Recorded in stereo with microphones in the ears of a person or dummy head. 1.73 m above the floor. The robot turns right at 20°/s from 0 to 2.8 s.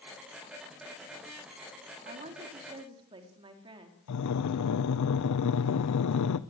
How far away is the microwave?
I don't hear a microwave.